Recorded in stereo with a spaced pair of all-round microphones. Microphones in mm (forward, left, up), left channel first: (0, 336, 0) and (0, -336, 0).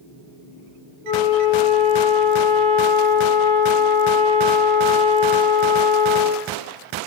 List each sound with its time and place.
1.0 s a flute: 5° left (ahead or behind), 0.7 m